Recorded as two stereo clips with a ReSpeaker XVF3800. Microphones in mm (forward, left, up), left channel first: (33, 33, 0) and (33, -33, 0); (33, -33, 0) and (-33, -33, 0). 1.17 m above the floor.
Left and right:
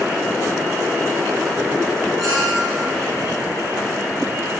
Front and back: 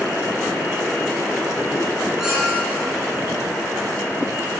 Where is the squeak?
95° right, 1.6 m.